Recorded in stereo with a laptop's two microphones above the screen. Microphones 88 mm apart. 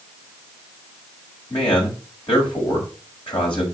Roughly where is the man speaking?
Left.